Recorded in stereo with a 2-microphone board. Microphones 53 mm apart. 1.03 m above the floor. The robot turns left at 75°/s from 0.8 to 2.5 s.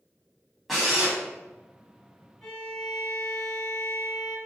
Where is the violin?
Centre (ahead or behind), 1.3 m; by 4.4 s 10° left (ahead or behind), 1.3 m.